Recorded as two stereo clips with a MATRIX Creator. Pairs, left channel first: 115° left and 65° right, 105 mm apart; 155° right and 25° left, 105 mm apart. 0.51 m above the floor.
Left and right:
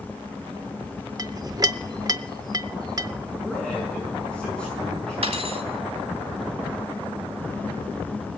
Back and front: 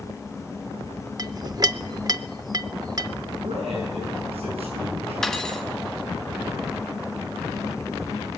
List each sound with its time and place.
1.2 s a clink: 20° right, 0.5 m
3.4 s a man speaking: 30° left, 7 m
5.2 s cutlery clinking: 70° right, 1.8 m